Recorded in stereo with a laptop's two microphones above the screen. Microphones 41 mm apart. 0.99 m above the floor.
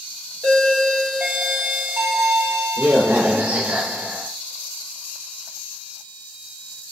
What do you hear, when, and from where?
0.4 s a doorbell: 55° right (ahead or behind), 1.3 m